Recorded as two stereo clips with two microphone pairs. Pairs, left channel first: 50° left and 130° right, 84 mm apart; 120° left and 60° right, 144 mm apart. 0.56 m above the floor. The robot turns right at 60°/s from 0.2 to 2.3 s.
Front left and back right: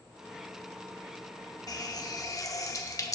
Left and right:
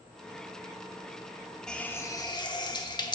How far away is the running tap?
About 0.6 m.